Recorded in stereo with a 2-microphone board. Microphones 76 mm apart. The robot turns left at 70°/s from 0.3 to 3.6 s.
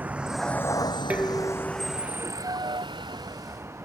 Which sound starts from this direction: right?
A vehicle, at 0.0 s.